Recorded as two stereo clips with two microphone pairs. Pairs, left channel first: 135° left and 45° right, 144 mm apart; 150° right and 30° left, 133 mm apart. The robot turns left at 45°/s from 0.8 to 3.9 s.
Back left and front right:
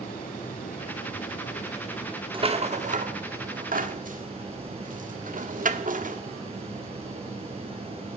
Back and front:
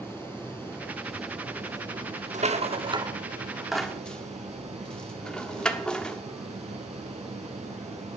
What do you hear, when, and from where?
0.0 s running water: 140° left, 4.5 m; by 8.2 s straight ahead, 4.5 m
2.3 s a rattle: 5° left, 1.1 m; by 6.2 s 65° right, 1.1 m